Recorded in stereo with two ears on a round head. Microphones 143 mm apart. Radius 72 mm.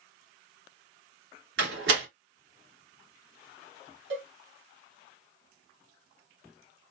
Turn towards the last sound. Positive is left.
turn(degrees=-70)  # may be behind; listen again after turning